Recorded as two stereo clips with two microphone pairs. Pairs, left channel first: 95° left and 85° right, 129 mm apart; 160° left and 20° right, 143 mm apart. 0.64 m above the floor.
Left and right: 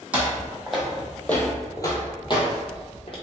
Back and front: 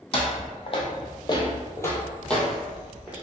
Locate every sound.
0.1 s footsteps: 165° right, 1.0 m; by 3.1 s 60° left, 1.0 m